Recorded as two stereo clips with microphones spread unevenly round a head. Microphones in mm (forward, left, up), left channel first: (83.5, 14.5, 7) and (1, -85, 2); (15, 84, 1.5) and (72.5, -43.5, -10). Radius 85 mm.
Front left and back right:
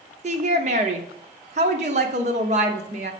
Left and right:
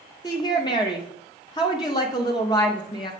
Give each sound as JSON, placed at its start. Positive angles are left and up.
{"t": 0.2, "sound": "a woman speaking", "azimuth_deg": -175, "distance_m": 0.7}